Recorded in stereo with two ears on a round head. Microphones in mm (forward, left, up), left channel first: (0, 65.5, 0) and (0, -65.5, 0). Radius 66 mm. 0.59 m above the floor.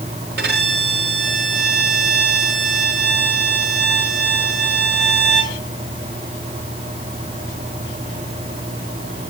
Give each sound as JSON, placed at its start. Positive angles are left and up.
{"t": 0.4, "sound": "a violin", "side_deg": -80, "distance_m": 5.0}